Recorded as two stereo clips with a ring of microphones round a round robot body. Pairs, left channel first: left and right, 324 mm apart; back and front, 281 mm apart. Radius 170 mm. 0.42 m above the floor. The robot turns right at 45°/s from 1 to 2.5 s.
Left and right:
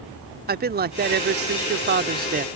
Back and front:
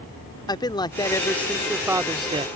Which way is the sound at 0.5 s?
115° right.